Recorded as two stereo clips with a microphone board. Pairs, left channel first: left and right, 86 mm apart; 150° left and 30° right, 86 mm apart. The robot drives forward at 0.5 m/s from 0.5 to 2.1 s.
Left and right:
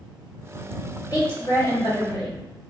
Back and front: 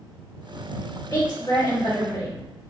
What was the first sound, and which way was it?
A woman speaking, 115° left.